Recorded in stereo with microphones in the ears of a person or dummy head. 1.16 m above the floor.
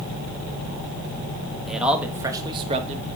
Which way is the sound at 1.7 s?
Centre (ahead or behind).